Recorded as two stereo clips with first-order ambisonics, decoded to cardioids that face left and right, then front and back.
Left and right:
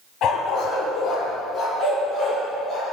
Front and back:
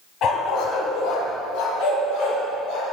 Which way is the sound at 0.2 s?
45° left.